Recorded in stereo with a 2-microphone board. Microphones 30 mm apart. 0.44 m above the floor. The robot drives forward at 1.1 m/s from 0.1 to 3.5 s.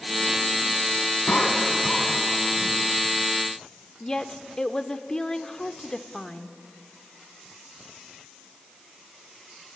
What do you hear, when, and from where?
1.3 s a cough: 60° left (ahead or behind), 3.5 m; by 2.8 s 45° left (ahead or behind), 4.5 m
4.0 s a woman speaking: 25° left (ahead or behind), 0.7 m